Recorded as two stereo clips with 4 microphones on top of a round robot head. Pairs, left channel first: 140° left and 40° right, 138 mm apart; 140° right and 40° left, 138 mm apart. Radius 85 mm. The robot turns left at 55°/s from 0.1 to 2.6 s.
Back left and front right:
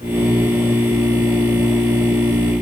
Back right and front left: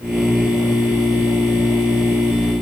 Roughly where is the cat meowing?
No cat meowing in this recording.